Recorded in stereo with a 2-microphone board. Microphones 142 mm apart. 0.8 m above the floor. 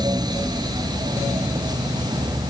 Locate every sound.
Only background noise.